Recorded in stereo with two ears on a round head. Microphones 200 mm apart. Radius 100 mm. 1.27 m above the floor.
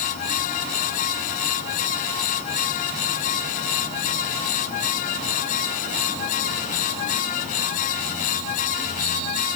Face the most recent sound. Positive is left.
No sound to turn to.